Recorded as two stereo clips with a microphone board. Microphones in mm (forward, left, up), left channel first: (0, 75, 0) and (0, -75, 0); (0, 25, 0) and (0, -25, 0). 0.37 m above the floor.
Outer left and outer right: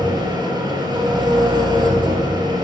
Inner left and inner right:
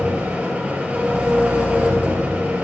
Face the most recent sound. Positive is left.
turn(degrees=-30)  # may be behind; listen again after turning